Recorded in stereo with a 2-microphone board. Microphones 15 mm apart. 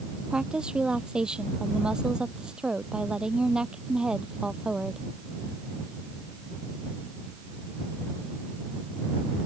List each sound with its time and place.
0.3 s a woman speaking: 75° right (ahead or behind)